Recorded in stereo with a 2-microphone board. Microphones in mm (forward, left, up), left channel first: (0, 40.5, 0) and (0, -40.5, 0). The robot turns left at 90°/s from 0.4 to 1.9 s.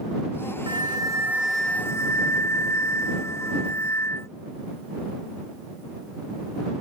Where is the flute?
100° right; by 4.3 s 145° left.